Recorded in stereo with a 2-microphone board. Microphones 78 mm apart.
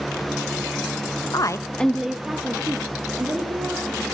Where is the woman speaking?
55° left (ahead or behind), 0.6 m; by 4.0 s 30° right (ahead or behind), 3 m.